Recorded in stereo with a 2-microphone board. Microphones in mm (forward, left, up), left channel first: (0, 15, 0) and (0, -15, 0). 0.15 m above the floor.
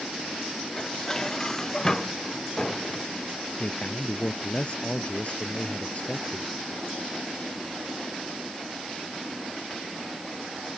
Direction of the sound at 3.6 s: 40° left (ahead or behind).